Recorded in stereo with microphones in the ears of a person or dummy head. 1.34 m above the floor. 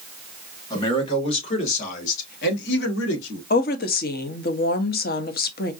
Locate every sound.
0.7 s a man speaking: 30° left (ahead or behind), 2.0 m; by 3.4 s 75° left (ahead or behind), 1.7 m
3.5 s a woman speaking: 45° left (ahead or behind), 0.7 m